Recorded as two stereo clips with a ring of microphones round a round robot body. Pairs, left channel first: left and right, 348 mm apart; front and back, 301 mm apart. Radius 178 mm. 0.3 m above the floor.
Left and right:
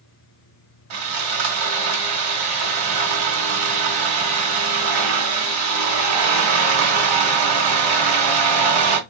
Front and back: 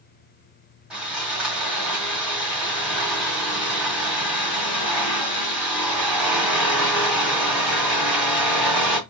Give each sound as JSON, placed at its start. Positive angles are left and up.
{"t": 0.9, "sound": "sawing", "azimuth_deg": -95, "distance_m": 1.5}